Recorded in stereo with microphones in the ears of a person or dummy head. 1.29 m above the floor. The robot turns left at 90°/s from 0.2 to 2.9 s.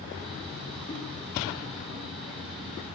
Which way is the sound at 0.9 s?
35° left (ahead or behind).